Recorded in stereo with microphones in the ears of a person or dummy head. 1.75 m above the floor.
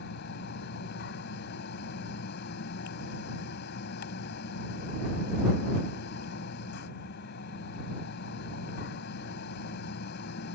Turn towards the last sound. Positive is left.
turn(degrees=60)  # may be behind; listen again after turning